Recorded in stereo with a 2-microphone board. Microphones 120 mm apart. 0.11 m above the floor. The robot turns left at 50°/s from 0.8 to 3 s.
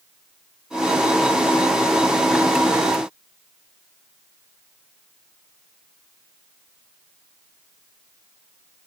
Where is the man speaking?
I don't hear a man speaking.